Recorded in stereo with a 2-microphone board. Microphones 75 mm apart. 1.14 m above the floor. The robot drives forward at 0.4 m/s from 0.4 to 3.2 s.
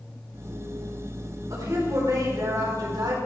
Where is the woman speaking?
55° right (ahead or behind), 4.5 m; by 3.1 s 60° right (ahead or behind), 4.5 m.